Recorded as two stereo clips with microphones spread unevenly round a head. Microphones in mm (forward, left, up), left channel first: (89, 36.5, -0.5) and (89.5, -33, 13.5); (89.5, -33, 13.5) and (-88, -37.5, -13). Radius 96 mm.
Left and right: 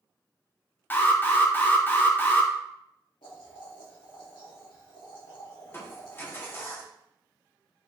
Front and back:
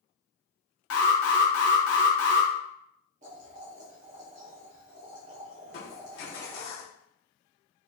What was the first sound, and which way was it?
An alarm, 25° left.